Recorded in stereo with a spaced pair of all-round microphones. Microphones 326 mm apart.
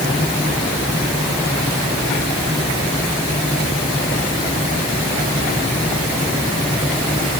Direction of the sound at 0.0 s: 15° left (ahead or behind).